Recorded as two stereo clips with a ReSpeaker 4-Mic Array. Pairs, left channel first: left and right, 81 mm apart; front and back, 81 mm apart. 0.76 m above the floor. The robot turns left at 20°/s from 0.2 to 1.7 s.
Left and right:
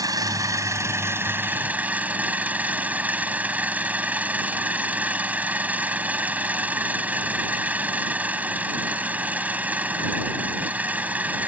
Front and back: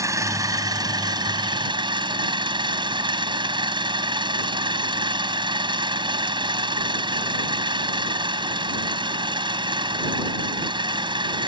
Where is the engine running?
130° right; by 11.5 s 160° right.